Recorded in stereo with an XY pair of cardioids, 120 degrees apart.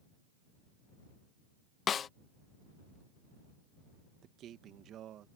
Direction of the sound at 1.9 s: 45° left.